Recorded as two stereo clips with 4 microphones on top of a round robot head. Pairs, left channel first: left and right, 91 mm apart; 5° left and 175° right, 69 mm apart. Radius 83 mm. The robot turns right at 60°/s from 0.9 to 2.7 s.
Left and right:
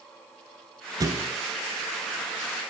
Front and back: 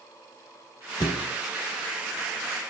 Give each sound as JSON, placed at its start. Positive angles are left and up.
{"t": 1.0, "sound": "a thud", "azimuth_deg": -40, "distance_m": 1.6}